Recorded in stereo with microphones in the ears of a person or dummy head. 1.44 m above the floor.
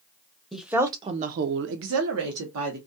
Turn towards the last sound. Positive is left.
turn(degrees=-75)  # may be behind; listen again after turning